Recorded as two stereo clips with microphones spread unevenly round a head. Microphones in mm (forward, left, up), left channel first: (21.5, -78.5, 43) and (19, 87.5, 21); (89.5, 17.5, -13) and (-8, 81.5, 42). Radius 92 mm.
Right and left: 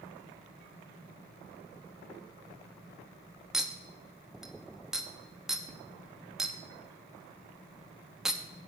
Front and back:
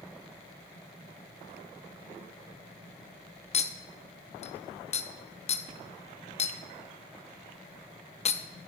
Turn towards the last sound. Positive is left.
turn(degrees=5)